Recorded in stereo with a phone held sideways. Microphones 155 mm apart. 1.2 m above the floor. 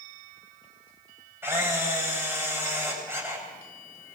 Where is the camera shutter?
15° right (ahead or behind), 7 m.